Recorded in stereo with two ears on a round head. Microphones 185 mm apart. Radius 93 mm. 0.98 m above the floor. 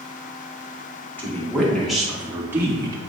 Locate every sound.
1.2 s a woman speaking: 10° left (ahead or behind), 2.5 m; by 3.0 s 20° right (ahead or behind), 1.8 m